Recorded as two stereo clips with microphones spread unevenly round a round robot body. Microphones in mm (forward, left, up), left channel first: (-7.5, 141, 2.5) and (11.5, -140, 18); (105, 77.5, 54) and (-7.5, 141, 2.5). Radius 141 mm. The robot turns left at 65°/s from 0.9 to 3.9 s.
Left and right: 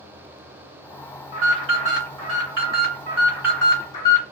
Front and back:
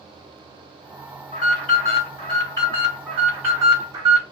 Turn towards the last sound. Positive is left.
turn(degrees=160)